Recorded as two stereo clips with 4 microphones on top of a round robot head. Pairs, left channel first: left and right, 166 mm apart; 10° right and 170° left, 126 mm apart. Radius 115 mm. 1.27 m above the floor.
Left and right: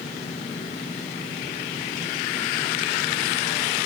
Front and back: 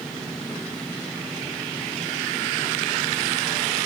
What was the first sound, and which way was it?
Only background noise.